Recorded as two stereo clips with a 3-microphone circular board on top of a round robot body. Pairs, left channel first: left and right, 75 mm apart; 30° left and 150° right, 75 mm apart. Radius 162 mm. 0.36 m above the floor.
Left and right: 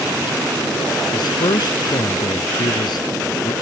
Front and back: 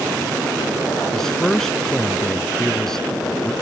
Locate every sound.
1.1 s a man speaking: 115° left